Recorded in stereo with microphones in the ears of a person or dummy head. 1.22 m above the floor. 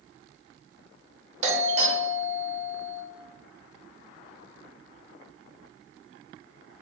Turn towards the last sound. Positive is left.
turn(degrees=-35)  # may be behind; listen again after turning